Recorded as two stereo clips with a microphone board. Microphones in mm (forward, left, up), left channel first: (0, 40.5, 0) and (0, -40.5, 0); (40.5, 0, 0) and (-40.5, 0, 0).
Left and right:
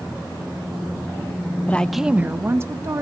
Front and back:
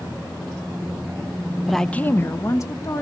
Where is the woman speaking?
100° left, 0.6 m; by 3.0 s 45° right, 1.6 m.